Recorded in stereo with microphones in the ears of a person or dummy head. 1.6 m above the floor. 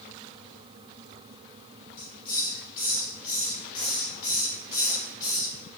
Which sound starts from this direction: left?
A hiss, at 2.0 s.